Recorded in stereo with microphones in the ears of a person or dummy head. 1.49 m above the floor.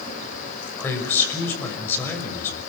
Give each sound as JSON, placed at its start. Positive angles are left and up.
{"t": 0.8, "sound": "a man speaking", "side_deg": 15, "distance_m": 6.0}